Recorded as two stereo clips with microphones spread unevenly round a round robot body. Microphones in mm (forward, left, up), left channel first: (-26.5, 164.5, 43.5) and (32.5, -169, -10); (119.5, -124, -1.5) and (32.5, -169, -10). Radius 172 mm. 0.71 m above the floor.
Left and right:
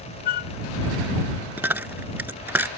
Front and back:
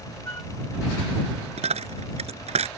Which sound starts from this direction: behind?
A dropped coin, at 1.6 s.